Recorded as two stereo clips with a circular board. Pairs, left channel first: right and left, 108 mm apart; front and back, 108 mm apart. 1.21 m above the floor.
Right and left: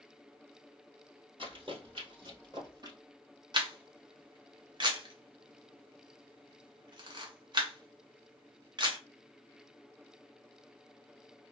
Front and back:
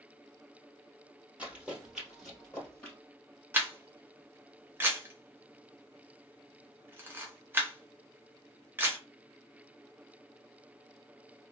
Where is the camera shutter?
115° left, 0.8 m.